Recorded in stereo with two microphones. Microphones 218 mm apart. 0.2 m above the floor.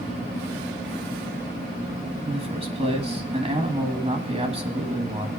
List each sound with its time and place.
2.2 s a man speaking: 25° right (ahead or behind), 1.4 m